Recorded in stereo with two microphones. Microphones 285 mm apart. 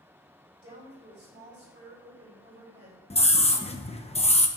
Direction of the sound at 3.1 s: 20° left (ahead or behind).